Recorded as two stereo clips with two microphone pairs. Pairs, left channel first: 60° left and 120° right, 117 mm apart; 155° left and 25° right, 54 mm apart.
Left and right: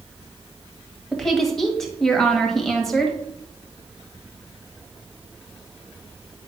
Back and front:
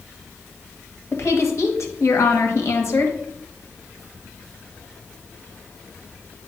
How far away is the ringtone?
I don't hear a ringtone.